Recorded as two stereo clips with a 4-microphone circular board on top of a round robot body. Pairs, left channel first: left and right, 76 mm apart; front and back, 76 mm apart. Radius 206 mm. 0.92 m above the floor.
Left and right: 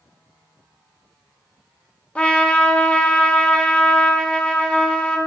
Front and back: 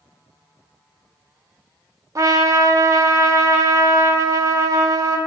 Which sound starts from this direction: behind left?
A trumpet, at 2.1 s.